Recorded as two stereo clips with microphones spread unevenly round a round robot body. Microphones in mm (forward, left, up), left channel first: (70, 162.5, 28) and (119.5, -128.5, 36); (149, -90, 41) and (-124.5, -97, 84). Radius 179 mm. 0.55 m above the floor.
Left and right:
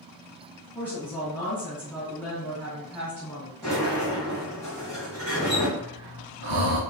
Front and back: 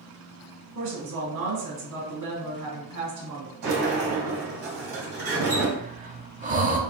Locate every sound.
0.8 s a woman speaking: 175° right, 2 m
3.6 s a sliding door: straight behind, 2.0 m
5.8 s breathing: 115° right, 0.9 m